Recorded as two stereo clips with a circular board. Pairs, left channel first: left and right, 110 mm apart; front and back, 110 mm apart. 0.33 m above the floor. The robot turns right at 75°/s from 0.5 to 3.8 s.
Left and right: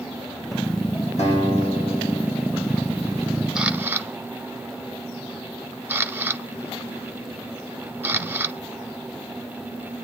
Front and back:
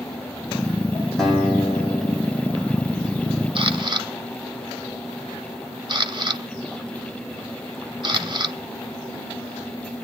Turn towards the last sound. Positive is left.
turn(degrees=-155)